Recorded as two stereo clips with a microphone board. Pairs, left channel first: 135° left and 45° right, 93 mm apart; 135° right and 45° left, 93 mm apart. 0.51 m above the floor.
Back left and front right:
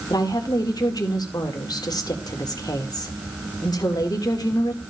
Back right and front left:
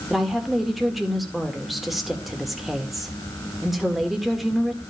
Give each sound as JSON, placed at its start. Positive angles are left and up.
{"t": 0.1, "sound": "a woman speaking", "azimuth_deg": 130, "distance_m": 1.5}